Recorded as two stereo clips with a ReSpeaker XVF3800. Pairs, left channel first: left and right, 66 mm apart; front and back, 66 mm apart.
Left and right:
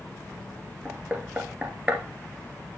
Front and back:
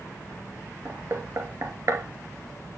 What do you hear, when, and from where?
0.8 s knocking: 160° right, 2 m